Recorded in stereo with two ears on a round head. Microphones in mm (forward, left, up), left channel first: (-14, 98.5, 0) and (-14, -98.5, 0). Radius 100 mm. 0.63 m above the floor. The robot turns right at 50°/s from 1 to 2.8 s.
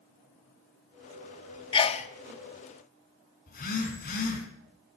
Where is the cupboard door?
No cupboard door in this recording.